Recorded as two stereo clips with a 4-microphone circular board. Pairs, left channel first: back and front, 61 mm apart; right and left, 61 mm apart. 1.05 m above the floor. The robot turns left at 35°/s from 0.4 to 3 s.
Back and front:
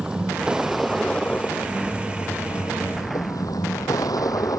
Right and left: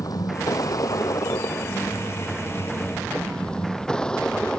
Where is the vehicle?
75° right; by 4.6 s 165° right.